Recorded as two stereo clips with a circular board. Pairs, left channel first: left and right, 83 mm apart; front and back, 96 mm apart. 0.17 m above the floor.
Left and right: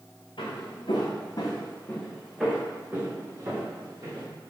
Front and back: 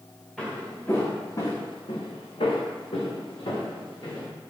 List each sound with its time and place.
0.4 s footsteps: 85° left, 1.4 m; by 4.3 s 40° right, 2.5 m